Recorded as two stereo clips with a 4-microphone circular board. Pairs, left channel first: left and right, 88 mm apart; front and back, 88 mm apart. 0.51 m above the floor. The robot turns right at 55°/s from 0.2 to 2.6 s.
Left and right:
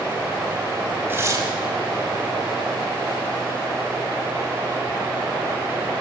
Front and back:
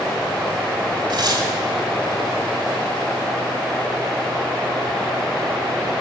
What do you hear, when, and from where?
1.1 s tearing paper: 155° right, 1.9 m; by 1.5 s 135° right, 1.9 m